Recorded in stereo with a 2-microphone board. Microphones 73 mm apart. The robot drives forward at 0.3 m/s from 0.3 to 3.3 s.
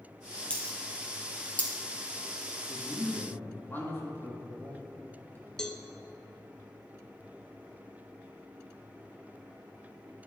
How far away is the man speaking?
About 1.8 m.